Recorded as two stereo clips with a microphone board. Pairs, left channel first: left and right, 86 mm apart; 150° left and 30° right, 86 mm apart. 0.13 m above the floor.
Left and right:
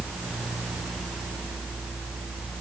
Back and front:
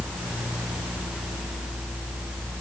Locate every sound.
Only background noise.